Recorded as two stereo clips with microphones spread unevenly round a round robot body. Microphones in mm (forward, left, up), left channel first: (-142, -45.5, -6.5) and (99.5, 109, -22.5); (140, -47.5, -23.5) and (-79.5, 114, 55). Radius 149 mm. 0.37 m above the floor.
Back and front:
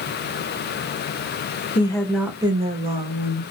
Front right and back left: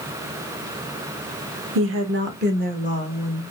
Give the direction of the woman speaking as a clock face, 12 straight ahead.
7 o'clock.